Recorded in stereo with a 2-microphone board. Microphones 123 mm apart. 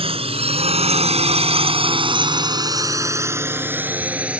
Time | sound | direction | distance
0.0 | a drone | 50° right (ahead or behind) | ?